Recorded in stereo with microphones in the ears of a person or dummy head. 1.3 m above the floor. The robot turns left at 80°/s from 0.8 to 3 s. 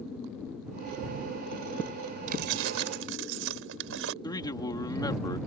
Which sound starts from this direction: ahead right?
Keys jangling, at 2.3 s.